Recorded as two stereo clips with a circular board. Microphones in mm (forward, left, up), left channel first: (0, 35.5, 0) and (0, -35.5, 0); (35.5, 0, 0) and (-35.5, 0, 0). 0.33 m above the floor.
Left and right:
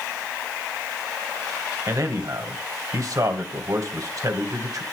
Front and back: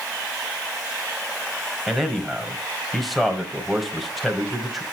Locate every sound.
1.9 s a man speaking: 90° right, 1.7 m